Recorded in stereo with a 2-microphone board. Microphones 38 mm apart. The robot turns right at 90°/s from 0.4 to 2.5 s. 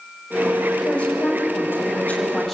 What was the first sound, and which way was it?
A woman speaking, 20° left.